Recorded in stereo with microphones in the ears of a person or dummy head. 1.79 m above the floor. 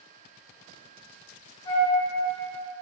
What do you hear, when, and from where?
1.6 s a flute: 65° left (ahead or behind), 1.6 m